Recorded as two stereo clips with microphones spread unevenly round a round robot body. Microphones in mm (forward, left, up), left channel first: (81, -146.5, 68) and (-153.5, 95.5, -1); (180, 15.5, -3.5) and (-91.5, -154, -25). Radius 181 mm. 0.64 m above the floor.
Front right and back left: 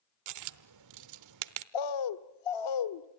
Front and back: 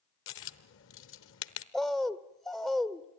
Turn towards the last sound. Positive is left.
turn(degrees=-55)